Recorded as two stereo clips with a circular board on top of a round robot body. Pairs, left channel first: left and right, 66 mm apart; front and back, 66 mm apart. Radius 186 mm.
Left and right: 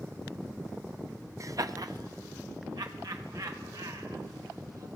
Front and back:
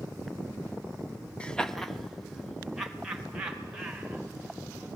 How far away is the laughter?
About 1.4 m.